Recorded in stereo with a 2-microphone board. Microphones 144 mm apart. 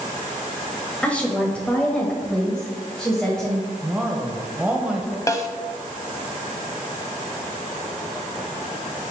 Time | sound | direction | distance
1.0 | a woman speaking | 10° left (ahead or behind) | 1.3 m
3.8 | a woman speaking | 10° right (ahead or behind) | 1.0 m
5.3 | a snare drum | 20° left (ahead or behind) | 0.6 m